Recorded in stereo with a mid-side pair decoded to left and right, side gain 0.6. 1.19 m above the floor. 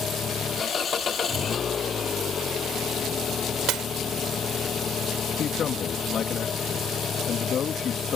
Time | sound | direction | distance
0.0 | an engine running | 35° left | ?
3.7 | breaking glass | 60° right | ?
5.4 | a man speaking | 45° left | ?